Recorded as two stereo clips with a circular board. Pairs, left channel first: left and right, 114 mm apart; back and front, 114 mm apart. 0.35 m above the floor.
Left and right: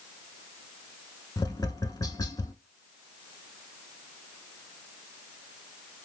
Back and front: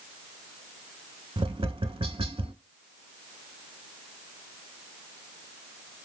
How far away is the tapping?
About 0.5 m.